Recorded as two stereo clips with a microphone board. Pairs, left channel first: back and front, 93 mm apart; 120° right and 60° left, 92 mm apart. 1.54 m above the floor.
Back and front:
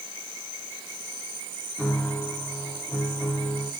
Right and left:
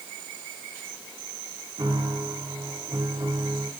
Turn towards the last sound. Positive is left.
turn(degrees=105)